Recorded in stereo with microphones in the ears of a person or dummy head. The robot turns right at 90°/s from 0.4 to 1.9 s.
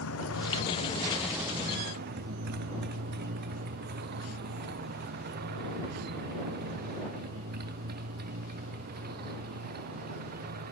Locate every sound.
0.0 s a motorcycle: 80° left; by 10.7 s 50° right (ahead or behind)